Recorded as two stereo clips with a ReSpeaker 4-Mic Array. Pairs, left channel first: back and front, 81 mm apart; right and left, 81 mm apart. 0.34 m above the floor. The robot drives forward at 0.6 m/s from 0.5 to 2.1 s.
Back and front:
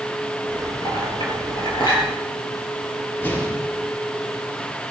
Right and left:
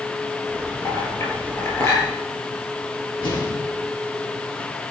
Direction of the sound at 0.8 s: 145° right.